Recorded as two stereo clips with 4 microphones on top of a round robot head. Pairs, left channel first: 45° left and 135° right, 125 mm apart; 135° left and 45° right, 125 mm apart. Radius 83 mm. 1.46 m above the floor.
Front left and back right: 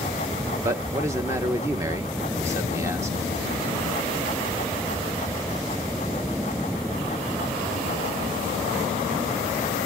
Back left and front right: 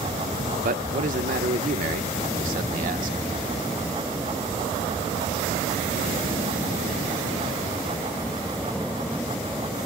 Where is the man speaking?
65° right, 1.0 m.